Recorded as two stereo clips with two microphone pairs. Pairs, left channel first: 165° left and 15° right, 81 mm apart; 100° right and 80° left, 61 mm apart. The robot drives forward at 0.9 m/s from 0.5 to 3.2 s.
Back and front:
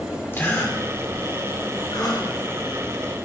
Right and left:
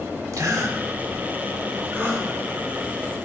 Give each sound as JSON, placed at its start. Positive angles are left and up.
{"t": 0.3, "sound": "a gasp", "azimuth_deg": 105, "distance_m": 1.8}